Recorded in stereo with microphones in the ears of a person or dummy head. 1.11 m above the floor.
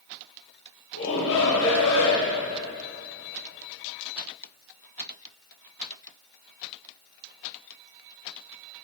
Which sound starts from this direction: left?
A shout, at 0.9 s.